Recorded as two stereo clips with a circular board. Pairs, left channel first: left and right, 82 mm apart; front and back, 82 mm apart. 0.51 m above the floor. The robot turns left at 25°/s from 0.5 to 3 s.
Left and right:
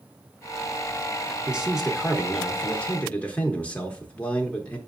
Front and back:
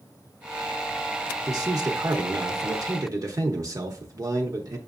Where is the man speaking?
165° right, 0.9 m; by 4.8 s 160° left, 0.9 m.